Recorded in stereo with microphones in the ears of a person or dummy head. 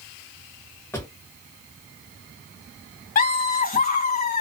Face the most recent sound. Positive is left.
turn(degrees=40)  # may be behind; listen again after turning